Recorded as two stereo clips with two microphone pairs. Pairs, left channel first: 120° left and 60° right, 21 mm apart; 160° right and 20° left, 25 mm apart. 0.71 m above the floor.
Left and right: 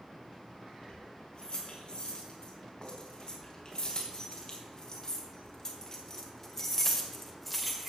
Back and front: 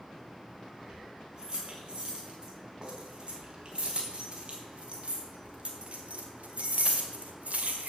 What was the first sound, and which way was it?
Keys jangling, 80° left.